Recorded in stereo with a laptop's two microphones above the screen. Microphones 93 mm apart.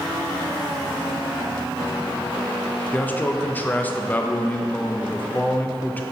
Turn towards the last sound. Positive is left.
turn(degrees=20)  # may be behind; listen again after turning